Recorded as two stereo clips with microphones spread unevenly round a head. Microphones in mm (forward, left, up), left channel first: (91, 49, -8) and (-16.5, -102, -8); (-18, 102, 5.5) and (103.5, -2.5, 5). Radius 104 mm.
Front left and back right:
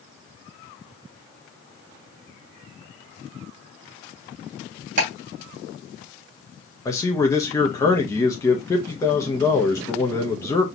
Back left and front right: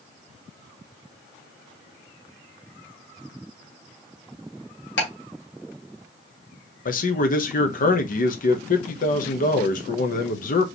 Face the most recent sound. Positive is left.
turn(degrees=130)